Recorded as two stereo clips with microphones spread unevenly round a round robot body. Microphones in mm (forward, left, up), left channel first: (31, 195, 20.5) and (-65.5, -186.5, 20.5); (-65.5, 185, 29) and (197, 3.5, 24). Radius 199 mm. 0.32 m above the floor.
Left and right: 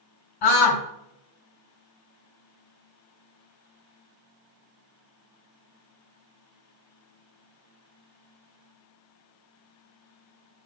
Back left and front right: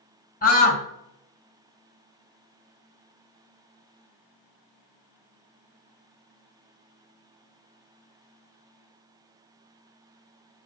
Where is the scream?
85° left, 2.5 m.